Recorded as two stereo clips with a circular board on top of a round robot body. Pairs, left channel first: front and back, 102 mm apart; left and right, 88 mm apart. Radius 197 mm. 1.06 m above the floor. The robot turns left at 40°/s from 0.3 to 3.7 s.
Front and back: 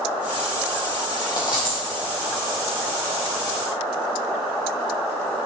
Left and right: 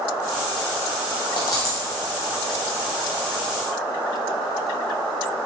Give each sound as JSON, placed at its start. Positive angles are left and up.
{"t": 1.4, "sound": "a dropped coin", "azimuth_deg": 50, "distance_m": 0.7}